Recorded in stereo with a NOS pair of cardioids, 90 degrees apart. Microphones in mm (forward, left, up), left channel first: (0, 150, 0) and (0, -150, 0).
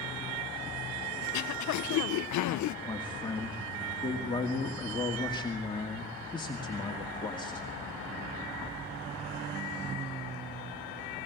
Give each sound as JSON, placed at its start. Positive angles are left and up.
{"t": 1.2, "sound": "throat clearing", "azimuth_deg": 70, "distance_m": 0.7}
{"t": 2.9, "sound": "a man speaking", "azimuth_deg": 15, "distance_m": 2.0}